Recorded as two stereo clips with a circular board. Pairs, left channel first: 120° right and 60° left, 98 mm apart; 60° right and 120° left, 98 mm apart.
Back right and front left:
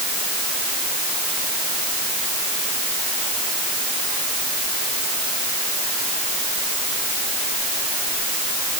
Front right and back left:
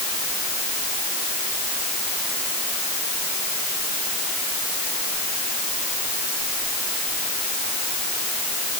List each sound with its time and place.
Only background noise.